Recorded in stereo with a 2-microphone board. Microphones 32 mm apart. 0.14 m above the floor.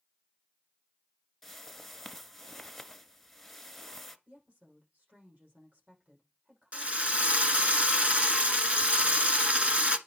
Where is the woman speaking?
60° right (ahead or behind), 6.5 m.